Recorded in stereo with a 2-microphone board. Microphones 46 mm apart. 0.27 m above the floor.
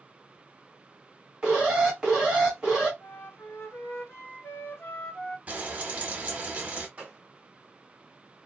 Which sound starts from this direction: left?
A flute, at 3.0 s.